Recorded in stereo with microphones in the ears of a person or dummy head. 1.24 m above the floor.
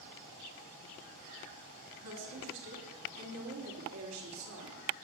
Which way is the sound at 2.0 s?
65° right (ahead or behind).